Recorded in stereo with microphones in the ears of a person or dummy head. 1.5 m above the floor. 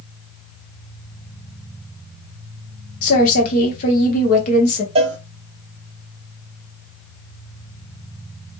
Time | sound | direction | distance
3.0 | a woman speaking | 50° left (ahead or behind) | 1.5 m
5.0 | a cowbell | 30° right (ahead or behind) | 0.8 m